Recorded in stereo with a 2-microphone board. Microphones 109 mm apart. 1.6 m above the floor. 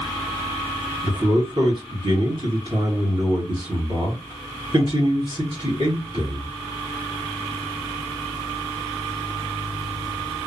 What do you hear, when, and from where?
1.0 s a man speaking: 50° right (ahead or behind), 2.5 m